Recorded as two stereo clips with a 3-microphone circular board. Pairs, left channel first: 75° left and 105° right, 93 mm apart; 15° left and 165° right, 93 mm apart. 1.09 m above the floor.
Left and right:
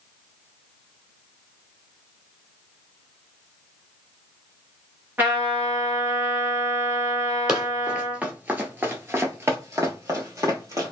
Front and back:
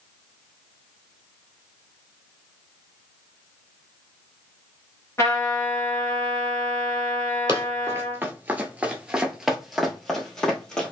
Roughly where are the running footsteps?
Behind.